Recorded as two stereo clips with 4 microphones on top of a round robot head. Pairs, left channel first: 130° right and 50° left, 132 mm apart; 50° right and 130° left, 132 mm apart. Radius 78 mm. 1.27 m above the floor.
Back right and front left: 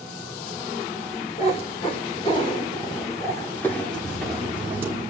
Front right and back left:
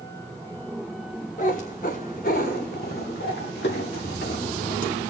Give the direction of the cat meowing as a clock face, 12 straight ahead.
3 o'clock.